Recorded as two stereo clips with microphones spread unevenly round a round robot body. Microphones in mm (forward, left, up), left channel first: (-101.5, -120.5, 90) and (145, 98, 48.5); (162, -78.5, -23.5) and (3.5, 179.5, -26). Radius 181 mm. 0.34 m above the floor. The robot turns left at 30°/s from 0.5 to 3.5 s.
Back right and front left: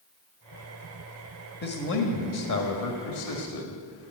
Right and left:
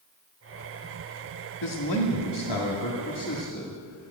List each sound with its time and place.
1.6 s a man speaking: 75° right, 1.8 m; by 4.1 s 135° right, 1.8 m